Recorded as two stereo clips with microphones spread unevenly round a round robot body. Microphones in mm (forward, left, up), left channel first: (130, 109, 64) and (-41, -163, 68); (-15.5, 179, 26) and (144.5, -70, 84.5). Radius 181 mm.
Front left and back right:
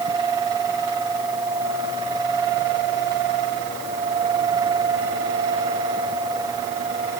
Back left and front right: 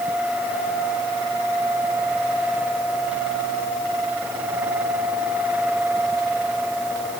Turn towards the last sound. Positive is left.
No sound to turn to.